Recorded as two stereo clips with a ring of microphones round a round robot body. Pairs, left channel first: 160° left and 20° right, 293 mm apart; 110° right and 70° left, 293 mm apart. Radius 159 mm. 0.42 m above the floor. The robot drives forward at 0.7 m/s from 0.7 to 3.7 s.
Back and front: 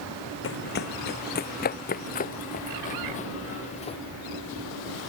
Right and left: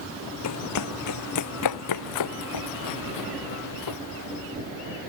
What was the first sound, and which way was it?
Running footsteps, 150° right.